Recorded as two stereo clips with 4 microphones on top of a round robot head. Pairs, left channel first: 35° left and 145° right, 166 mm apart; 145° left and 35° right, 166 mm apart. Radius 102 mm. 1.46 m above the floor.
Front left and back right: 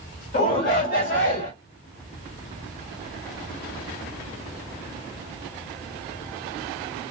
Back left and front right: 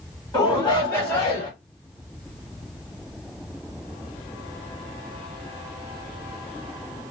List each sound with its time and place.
0.3 s a shout: 70° left, 2.5 m; by 1.5 s 60° left, 2.5 m